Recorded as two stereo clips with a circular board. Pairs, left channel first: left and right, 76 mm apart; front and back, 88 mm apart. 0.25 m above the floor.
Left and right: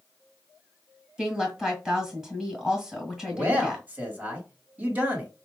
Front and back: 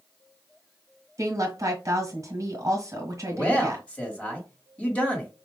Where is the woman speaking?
165° right, 1.4 m.